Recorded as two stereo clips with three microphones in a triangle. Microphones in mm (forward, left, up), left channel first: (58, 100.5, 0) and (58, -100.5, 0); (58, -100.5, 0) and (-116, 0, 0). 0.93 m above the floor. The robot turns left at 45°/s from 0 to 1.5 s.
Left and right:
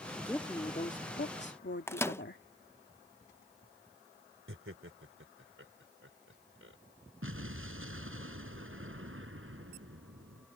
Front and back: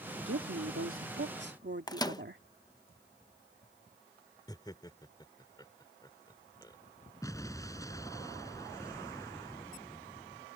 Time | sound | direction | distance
0.3 | a woman speaking | 170° left | ?
1.9 | a microwave | 20° left | ?
4.5 | laughter | 100° right | ?
7.2 | an explosion | 105° right | ?